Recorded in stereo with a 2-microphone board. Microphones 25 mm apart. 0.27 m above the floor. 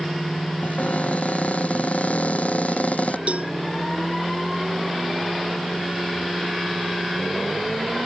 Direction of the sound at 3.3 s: 65° right (ahead or behind).